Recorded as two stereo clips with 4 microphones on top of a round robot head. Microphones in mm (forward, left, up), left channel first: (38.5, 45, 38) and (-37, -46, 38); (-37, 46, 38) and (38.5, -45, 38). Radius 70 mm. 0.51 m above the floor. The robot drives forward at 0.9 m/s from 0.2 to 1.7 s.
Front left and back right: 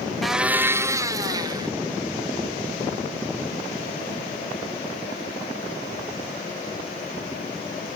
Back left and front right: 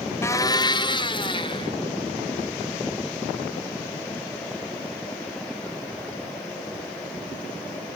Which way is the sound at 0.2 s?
140° left.